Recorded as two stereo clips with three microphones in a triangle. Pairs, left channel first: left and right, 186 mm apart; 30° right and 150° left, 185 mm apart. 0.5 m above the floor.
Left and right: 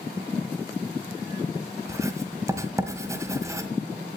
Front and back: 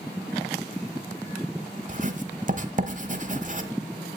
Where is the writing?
165° right, 1.3 m.